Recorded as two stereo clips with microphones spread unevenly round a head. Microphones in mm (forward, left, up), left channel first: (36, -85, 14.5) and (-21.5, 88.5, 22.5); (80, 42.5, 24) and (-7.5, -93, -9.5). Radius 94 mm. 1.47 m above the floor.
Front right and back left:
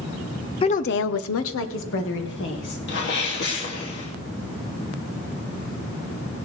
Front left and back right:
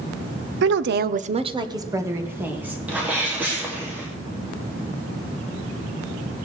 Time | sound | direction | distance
0.6 | a woman speaking | 135° right | 0.7 m
2.9 | a sneeze | 40° right | 2.5 m